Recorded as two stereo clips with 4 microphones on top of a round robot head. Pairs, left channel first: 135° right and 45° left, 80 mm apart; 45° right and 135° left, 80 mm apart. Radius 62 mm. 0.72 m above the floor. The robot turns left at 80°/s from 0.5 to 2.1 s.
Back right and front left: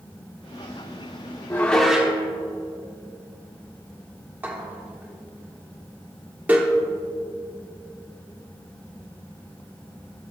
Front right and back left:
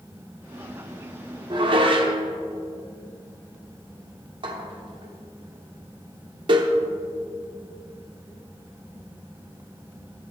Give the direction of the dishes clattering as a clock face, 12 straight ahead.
7 o'clock.